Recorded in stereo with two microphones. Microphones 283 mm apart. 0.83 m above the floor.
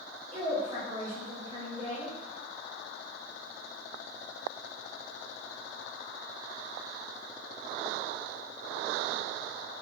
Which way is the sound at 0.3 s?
20° right (ahead or behind).